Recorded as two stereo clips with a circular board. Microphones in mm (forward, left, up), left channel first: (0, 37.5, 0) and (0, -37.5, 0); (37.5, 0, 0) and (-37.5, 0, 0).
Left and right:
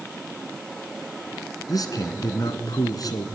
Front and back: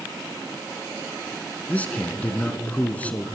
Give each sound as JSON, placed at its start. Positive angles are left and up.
{"t": 1.7, "sound": "a man speaking", "azimuth_deg": 70, "distance_m": 3.0}